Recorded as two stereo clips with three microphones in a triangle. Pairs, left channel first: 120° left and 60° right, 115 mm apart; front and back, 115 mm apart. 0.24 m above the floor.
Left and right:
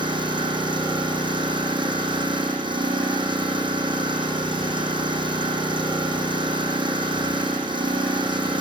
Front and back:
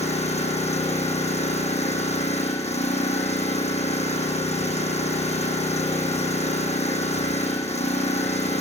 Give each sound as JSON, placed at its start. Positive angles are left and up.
{"t": 0.0, "sound": "an engine running", "azimuth_deg": -15, "distance_m": 7.0}